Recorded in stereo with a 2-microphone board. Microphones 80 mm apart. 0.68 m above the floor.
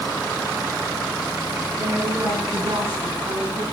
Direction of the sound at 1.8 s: 55° right (ahead or behind).